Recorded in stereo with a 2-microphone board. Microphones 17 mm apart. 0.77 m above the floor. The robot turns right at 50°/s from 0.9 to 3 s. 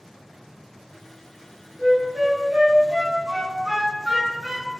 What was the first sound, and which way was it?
A flute, 65° right (ahead or behind).